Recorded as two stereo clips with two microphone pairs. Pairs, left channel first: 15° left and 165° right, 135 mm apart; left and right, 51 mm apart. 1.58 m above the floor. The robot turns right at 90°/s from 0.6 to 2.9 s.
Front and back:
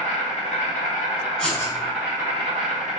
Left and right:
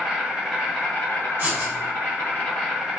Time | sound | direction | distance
0.0 | an insect | 10° right | 1.9 m
1.4 | writing | 65° right | 1.0 m